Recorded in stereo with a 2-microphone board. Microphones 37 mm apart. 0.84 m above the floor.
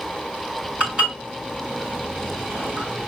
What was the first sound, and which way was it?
Dishes clattering, 35° right (ahead or behind).